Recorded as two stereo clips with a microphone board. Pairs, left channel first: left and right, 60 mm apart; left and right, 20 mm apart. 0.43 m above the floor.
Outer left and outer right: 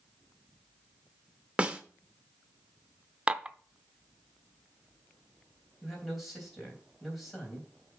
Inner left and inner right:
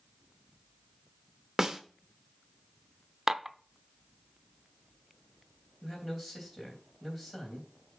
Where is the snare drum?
20° right (ahead or behind), 0.8 m.